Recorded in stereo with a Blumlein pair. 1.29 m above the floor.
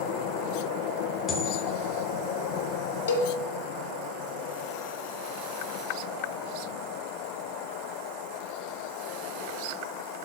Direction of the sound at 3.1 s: 65° left.